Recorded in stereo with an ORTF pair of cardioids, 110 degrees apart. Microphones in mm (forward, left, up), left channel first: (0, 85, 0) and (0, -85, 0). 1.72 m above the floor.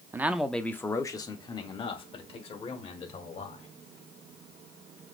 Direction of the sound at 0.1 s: 15° right.